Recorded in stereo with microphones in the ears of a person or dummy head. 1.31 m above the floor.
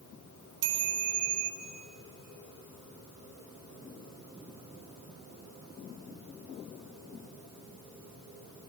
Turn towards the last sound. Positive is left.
turn(degrees=-60)  # may be behind; listen again after turning